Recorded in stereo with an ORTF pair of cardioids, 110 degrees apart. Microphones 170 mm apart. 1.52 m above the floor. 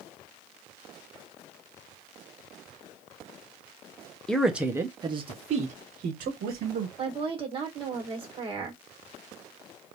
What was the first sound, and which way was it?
A man speaking, 5° left.